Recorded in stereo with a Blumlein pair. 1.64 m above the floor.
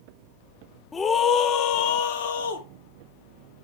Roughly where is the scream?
Ahead.